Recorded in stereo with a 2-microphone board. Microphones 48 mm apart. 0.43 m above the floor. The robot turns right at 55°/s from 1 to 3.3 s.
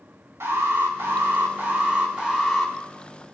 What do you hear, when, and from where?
0.4 s an alarm: 90° right, 5 m; by 2.7 s 5° left, 5 m